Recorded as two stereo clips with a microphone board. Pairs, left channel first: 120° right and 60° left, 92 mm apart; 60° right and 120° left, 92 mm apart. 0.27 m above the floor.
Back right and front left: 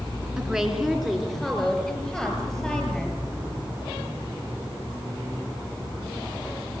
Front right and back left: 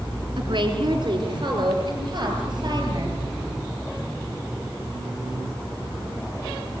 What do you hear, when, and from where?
0.4 s a woman speaking: 145° left, 3.5 m; by 3.2 s 160° left, 7.5 m